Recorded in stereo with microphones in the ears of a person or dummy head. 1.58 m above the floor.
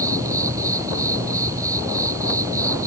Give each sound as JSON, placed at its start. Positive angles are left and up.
{"t": 0.0, "sound": "an insect", "side_deg": -15}